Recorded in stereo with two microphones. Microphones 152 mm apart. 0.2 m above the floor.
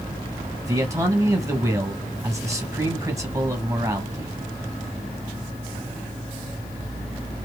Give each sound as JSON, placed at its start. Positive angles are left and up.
{"t": 0.7, "sound": "a man speaking", "side_deg": -20, "distance_m": 1.1}